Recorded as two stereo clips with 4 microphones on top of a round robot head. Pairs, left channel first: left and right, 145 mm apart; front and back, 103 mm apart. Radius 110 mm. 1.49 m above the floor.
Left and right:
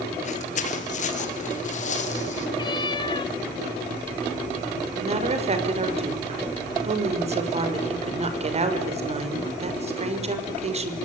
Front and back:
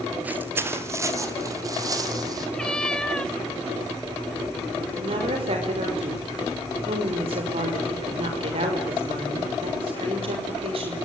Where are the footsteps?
110° left, 2.0 m; by 2.5 s 125° left, 5 m.